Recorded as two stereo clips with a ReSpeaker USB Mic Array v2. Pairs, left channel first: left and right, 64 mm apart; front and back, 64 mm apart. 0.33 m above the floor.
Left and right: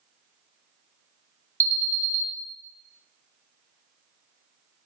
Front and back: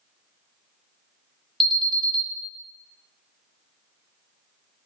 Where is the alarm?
90° left, 1.4 m.